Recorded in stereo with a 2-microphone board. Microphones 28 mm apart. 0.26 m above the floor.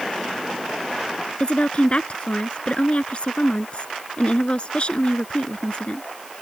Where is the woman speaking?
50° left (ahead or behind).